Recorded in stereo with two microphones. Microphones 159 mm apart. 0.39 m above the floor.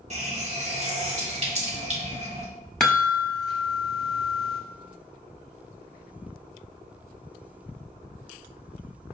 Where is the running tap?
45° right (ahead or behind), 0.9 m.